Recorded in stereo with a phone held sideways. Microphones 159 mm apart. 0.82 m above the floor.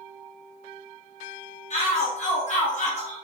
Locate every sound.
1.7 s a shout: 50° left (ahead or behind), 1.0 m